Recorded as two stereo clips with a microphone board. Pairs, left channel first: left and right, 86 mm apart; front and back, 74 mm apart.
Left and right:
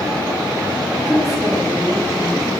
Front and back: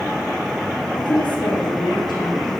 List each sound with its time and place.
0.9 s a woman speaking: 5° right, 9.5 m; by 2.6 s straight ahead, 11 m